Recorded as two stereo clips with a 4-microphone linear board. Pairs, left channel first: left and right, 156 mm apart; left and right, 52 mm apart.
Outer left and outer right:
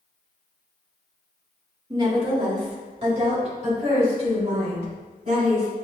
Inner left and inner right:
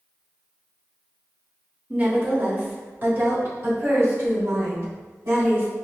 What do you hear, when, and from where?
1.9 s a woman speaking: 25° right (ahead or behind), 1.4 m; by 5.7 s 50° right (ahead or behind), 4.5 m